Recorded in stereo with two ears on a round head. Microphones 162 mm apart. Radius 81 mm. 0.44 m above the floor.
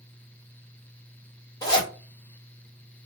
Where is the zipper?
20° left (ahead or behind), 1.6 m.